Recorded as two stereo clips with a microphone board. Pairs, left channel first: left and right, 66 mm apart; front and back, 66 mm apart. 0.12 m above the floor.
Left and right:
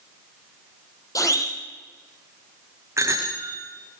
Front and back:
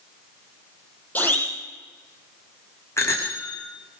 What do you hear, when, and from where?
1.1 s a siren: 60° left, 6 m
3.0 s a bicycle bell: 45° right, 7 m